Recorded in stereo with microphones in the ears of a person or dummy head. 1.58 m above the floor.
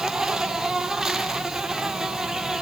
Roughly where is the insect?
Centre.